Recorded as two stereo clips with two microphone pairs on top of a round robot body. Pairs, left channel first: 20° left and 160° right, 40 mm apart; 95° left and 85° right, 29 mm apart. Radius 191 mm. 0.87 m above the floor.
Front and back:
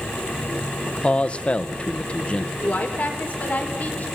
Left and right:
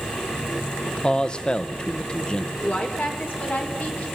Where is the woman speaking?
70° left, 4 m.